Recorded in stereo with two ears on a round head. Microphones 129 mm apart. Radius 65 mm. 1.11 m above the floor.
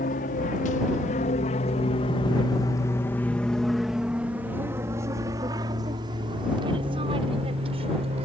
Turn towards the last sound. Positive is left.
turn(degrees=-40)  # may be behind; listen again after turning